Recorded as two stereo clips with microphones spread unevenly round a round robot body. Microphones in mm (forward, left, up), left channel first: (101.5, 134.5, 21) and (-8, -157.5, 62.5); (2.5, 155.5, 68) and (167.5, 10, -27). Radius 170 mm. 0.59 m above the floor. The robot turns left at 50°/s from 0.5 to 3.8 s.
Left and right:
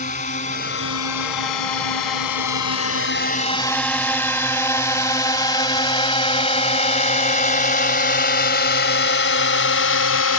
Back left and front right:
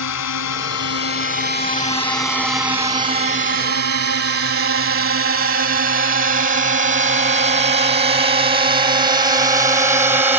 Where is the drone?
140° left; by 10.4 s 30° left.